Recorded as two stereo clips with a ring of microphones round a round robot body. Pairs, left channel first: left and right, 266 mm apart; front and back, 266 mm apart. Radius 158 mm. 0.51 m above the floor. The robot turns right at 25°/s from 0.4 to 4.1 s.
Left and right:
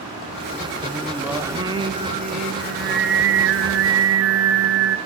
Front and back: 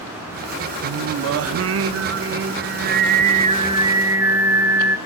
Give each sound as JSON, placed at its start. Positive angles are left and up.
{"t": 0.8, "sound": "singing", "azimuth_deg": 175, "distance_m": 0.5}